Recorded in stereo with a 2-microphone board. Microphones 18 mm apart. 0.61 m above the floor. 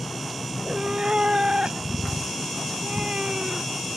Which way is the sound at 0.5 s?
75° right (ahead or behind).